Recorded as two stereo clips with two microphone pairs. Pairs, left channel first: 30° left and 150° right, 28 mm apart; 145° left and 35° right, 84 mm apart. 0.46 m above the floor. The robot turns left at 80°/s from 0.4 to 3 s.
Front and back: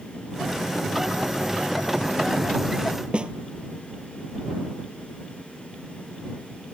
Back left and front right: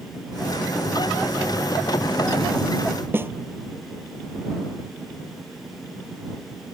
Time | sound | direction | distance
3.1 | a snare drum | 100° right | ?